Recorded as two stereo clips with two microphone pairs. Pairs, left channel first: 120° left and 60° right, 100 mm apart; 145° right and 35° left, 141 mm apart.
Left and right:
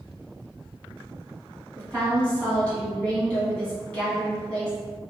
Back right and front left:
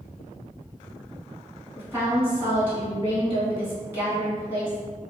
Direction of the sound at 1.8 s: 70° left.